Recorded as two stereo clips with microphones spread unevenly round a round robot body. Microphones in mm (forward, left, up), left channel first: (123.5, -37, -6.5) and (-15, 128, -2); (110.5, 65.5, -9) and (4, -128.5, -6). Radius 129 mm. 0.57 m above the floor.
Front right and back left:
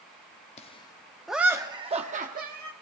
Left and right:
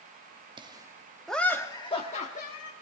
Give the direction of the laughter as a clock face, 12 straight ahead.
2 o'clock.